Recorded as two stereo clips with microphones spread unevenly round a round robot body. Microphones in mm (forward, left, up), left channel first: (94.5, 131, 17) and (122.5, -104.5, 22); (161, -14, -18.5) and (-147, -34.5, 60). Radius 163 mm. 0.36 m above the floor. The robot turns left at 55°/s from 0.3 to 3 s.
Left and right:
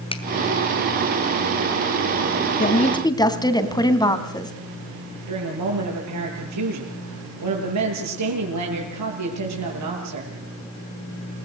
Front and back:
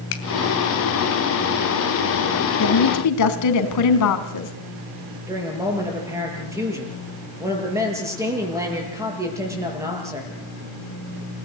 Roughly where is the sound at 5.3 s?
Right.